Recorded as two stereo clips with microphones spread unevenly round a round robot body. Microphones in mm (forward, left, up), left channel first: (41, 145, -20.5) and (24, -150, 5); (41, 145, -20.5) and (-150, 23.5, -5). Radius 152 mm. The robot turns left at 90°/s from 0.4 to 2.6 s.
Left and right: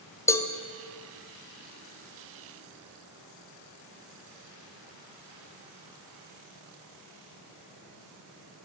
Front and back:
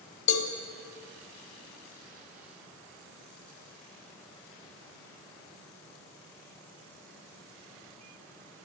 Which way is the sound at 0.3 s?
5° left.